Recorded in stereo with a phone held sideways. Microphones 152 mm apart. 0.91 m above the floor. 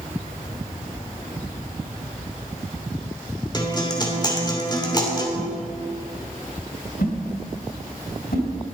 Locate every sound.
3.5 s a guitar: 30° left (ahead or behind), 2.5 m
5.3 s a whoosh: 80° left, 3.5 m